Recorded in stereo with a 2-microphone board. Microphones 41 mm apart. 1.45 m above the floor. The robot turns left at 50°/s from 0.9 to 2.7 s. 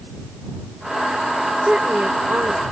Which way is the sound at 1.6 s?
20° right.